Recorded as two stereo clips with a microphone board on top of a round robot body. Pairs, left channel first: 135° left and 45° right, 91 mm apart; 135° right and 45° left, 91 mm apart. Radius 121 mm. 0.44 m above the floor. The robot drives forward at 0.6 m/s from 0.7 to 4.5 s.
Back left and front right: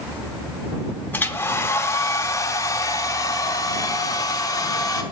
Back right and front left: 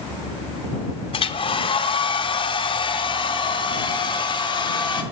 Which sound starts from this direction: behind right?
A hair dryer, at 1.1 s.